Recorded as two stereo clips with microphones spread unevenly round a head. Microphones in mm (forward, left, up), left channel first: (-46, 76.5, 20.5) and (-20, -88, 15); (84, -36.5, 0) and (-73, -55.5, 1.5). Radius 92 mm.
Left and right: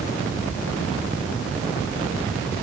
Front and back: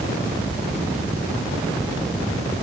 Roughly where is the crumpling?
No crumpling in this recording.